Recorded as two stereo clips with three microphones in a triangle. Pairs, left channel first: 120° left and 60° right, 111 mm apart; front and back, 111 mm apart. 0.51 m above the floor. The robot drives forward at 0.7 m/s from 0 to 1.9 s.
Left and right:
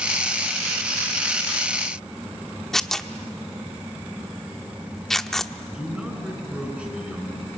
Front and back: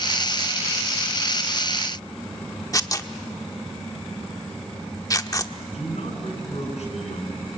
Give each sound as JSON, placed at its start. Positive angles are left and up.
{"t": 2.7, "sound": "tearing paper", "azimuth_deg": 35, "distance_m": 0.9}
{"t": 5.7, "sound": "a man speaking", "azimuth_deg": 20, "distance_m": 7.0}